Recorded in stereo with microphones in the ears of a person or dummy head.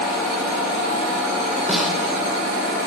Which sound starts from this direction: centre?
A snare drum, at 1.7 s.